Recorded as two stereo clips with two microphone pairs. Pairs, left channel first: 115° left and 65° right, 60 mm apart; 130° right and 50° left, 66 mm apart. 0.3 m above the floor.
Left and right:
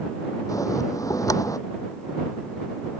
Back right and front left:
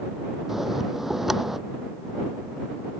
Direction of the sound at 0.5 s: 135° left.